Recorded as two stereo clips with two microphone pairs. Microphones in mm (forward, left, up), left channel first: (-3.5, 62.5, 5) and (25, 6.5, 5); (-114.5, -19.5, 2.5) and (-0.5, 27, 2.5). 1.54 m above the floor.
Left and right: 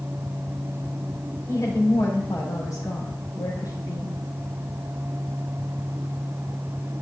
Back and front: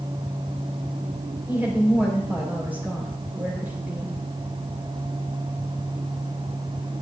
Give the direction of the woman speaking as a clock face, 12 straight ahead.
9 o'clock.